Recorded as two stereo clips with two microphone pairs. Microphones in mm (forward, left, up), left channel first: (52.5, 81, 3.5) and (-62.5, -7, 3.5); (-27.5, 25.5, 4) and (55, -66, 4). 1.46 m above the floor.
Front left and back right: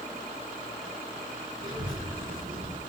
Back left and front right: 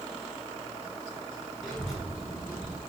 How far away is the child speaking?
About 1.5 m.